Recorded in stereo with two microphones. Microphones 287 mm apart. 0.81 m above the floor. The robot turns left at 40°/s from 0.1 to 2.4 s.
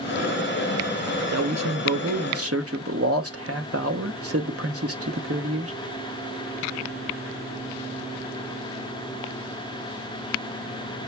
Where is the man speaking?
75° right, 0.8 m; by 5.7 s 115° right, 0.8 m.